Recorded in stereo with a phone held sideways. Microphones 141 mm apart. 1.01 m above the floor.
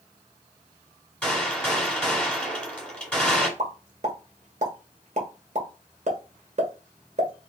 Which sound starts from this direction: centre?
A gunshot, at 1.2 s.